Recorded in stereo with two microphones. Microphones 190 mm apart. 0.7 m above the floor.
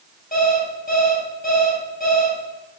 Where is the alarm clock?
50° left (ahead or behind), 2 m.